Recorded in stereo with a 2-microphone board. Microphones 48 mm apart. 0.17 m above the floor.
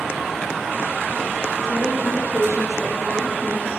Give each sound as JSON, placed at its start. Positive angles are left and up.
{"t": 1.6, "sound": "a woman speaking", "side_deg": 75, "distance_m": 3.5}